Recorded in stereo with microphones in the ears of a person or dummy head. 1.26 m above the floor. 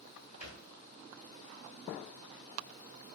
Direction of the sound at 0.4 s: 45° right (ahead or behind).